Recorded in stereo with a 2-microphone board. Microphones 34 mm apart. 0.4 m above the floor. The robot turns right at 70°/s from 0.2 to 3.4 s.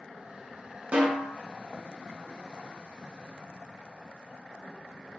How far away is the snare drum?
About 0.9 m.